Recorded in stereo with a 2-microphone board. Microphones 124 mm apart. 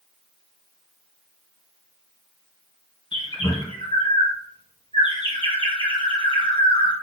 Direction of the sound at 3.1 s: 45° left (ahead or behind).